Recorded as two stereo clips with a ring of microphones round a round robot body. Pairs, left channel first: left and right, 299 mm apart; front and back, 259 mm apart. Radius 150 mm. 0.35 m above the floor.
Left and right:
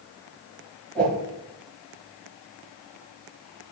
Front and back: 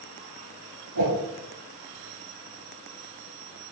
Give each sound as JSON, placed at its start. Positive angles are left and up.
{"t": 0.9, "sound": "a whoosh", "azimuth_deg": 175, "distance_m": 4.0}